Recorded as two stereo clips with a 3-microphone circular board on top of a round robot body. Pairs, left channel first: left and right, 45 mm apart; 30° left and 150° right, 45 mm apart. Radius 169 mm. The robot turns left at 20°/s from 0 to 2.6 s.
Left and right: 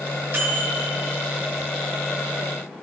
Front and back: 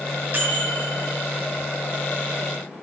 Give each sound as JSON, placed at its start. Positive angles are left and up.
{"t": 0.3, "sound": "a microwave", "azimuth_deg": -120, "distance_m": 1.6}